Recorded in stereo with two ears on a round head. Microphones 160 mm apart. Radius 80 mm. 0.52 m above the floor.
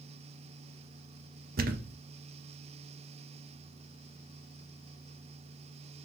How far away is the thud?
About 0.5 m.